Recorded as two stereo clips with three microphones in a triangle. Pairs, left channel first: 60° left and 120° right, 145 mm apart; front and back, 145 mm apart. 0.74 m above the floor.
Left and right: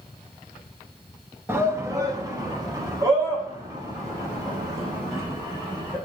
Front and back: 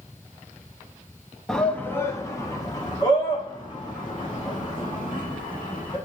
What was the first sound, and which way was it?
A shout, 85° right.